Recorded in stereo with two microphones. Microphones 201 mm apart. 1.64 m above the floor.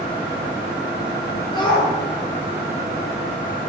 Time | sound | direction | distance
1.5 | a shout | 25° left (ahead or behind) | 8 m